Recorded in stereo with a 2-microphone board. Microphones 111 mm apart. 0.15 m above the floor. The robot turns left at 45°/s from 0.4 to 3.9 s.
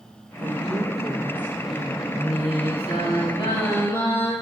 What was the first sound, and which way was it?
A woman speaking, 120° right.